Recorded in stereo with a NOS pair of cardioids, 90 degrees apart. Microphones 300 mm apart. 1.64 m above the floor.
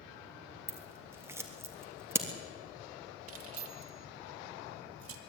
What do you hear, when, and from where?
0.7 s scissors: 10° right, 3 m
3.3 s keys jangling: 55° right, 2.5 m